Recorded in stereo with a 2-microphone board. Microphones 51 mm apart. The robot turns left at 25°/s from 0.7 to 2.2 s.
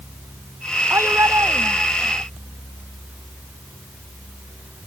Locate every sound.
0.9 s a shout: 60° right; by 2.2 s 95° right